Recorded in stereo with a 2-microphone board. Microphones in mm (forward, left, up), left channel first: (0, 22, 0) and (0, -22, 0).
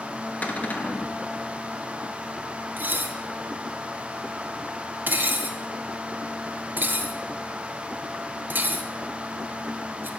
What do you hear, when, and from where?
0.4 s a cupboard door: 35° left (ahead or behind), 1.0 m
2.8 s dishes clattering: 45° right (ahead or behind), 0.7 m